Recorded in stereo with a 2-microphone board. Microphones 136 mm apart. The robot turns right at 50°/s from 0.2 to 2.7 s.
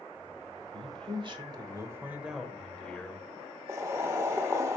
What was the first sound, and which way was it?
A man speaking, 85° right.